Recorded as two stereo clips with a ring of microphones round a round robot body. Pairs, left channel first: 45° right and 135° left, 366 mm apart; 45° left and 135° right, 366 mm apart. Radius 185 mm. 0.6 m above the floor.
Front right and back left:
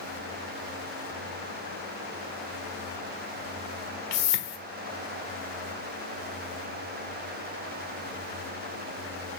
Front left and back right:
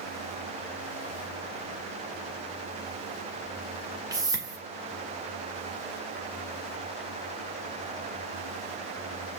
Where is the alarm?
No alarm in this recording.